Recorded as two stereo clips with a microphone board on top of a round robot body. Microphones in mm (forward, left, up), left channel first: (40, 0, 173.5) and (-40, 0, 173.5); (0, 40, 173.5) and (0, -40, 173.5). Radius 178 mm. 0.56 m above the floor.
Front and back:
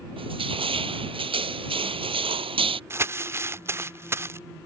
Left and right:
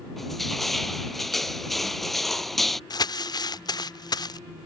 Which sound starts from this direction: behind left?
Crumpling, at 2.9 s.